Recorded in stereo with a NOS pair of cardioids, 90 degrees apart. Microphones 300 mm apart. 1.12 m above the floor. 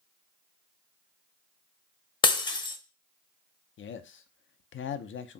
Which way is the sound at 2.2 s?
15° left.